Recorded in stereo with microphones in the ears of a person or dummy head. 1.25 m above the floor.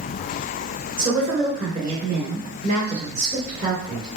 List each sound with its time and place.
1.0 s a woman speaking: 25° right (ahead or behind), 1.6 m